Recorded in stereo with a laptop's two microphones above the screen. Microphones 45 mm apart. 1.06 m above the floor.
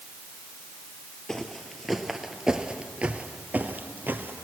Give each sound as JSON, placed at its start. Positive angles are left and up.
{"t": 1.3, "sound": "footsteps", "side_deg": 10, "distance_m": 1.5}